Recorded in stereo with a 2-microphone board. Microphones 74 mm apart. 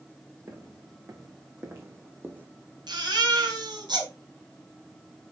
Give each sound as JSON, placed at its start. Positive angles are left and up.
{"t": 0.5, "sound": "footsteps", "side_deg": -45, "distance_m": 3.0}
{"t": 2.9, "sound": "a baby crying", "side_deg": -75, "distance_m": 3.0}